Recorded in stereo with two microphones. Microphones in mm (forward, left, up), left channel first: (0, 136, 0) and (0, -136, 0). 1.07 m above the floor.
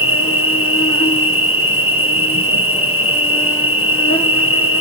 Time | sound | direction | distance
0.0 | an insect | 55° left (ahead or behind) | 1.2 m